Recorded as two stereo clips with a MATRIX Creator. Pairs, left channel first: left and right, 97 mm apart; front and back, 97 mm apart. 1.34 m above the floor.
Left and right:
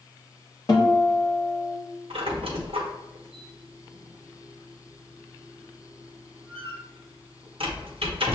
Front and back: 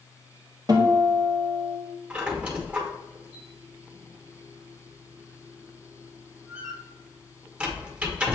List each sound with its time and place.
0.7 s a guitar: 135° left, 1.1 m
2.1 s a squeak: 105° right, 1.0 m